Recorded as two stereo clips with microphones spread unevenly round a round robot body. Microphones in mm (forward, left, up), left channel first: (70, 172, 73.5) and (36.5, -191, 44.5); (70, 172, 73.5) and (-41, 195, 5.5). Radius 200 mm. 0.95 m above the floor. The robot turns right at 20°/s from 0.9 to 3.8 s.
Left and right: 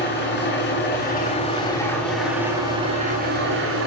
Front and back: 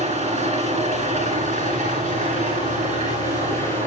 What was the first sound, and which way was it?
An engine running, 150° left.